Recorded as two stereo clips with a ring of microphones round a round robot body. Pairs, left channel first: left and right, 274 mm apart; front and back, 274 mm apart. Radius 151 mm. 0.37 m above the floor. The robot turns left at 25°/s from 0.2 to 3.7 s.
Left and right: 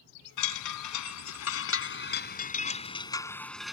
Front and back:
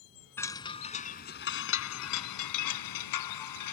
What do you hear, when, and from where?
0.4 s a chime: 85° left; by 3.7 s straight ahead